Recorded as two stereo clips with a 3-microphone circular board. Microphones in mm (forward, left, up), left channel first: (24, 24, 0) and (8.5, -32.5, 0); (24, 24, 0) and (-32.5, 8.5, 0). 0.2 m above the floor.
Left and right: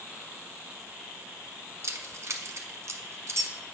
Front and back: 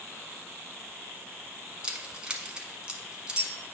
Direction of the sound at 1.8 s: 95° right.